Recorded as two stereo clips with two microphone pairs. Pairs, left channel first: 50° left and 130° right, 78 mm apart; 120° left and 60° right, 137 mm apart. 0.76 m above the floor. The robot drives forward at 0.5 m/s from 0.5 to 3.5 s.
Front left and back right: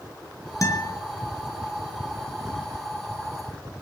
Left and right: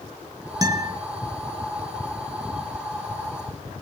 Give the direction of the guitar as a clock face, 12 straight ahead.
12 o'clock.